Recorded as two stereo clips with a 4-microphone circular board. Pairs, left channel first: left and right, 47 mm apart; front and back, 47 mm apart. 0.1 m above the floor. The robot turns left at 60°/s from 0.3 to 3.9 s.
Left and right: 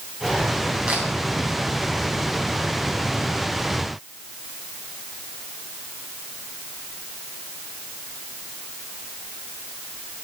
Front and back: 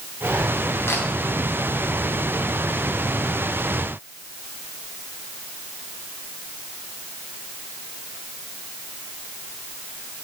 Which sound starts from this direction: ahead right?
A camera shutter, at 0.9 s.